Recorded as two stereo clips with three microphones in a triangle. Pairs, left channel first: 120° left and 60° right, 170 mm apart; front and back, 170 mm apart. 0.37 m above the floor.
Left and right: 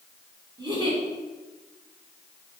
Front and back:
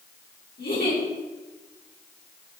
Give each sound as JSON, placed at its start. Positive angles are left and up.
{"t": 0.6, "sound": "a giggle", "azimuth_deg": 0, "distance_m": 2.5}